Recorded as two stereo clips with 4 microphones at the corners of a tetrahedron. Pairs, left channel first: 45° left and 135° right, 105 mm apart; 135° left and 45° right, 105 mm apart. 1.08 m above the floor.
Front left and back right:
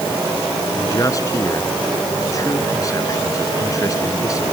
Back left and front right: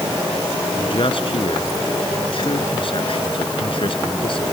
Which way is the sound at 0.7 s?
100° left.